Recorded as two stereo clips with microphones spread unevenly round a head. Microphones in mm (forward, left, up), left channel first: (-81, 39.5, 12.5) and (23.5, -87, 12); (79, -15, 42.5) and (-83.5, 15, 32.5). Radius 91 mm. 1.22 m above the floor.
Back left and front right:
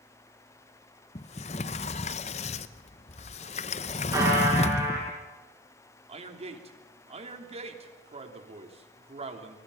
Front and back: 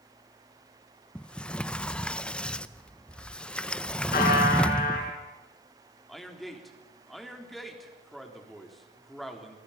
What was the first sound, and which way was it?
A sliding door, 75° left.